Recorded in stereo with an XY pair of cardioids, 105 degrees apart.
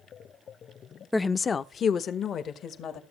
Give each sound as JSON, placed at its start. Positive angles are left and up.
{"t": 1.1, "sound": "a woman speaking", "azimuth_deg": 5, "distance_m": 0.5}